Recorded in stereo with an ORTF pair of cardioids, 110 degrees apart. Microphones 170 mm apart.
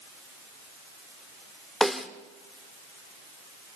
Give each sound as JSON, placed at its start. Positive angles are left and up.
{"t": 1.8, "sound": "a snare drum", "azimuth_deg": 0, "distance_m": 1.4}